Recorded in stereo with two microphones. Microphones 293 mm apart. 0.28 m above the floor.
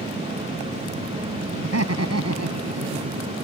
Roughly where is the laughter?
Right.